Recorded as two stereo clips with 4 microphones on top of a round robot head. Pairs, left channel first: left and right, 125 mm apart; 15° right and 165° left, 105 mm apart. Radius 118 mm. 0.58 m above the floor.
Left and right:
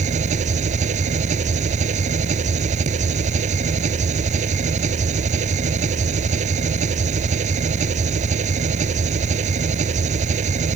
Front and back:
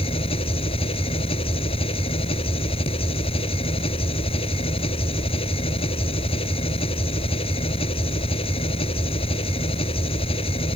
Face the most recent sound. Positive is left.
turn(degrees=-55)